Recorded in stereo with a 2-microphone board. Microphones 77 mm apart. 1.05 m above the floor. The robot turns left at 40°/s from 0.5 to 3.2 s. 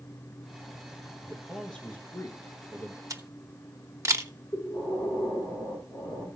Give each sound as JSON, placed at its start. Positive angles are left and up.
{"t": 1.2, "sound": "a man speaking", "azimuth_deg": -175, "distance_m": 1.2}
{"t": 3.1, "sound": "a camera shutter", "side_deg": -45, "distance_m": 0.9}
{"t": 4.5, "sound": "breathing", "side_deg": 65, "distance_m": 5.0}